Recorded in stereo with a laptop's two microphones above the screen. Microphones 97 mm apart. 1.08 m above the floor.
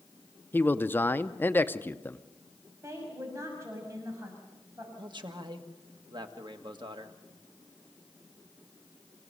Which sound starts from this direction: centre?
A man speaking, at 0.5 s.